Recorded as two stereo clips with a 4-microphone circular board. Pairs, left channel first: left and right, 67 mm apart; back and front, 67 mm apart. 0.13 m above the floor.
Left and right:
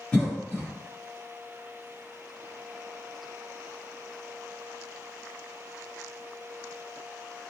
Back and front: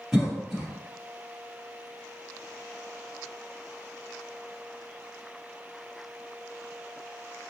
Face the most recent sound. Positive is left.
turn(degrees=75)